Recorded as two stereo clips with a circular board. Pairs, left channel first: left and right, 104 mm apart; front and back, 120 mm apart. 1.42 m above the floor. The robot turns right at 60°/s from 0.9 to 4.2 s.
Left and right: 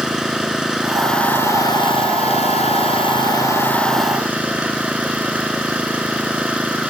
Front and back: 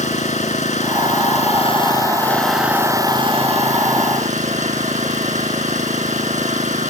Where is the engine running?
5° right; by 6.9 s 170° right.